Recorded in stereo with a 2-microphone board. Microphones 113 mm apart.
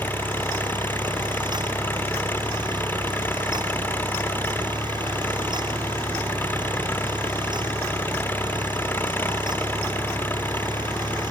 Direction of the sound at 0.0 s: 15° left (ahead or behind).